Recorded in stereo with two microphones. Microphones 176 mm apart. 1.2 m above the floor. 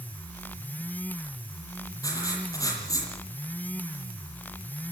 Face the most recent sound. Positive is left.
turn(degrees=20)  # may be behind; listen again after turning